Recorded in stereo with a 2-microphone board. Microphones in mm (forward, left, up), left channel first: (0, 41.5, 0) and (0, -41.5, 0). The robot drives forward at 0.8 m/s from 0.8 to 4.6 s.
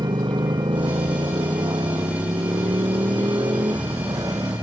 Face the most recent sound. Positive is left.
turn(degrees=-45)  # may be behind; listen again after turning